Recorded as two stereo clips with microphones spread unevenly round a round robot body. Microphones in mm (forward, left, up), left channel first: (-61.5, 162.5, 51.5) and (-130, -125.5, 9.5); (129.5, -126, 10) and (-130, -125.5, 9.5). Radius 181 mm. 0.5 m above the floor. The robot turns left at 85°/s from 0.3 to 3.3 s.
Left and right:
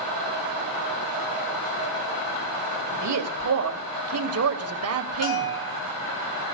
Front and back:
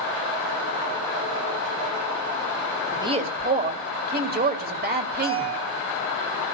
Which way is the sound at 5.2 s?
95° left.